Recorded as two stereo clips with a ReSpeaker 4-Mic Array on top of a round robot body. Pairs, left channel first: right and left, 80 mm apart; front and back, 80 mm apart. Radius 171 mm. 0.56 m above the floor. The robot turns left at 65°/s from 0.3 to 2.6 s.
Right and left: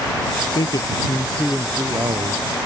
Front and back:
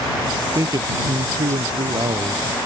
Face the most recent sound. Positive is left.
turn(degrees=105)